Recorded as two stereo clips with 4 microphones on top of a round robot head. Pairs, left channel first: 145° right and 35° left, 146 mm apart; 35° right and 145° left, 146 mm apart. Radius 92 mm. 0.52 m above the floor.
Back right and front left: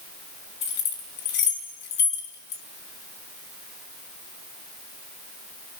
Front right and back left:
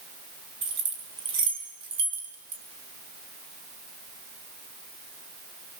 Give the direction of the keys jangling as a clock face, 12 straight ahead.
5 o'clock.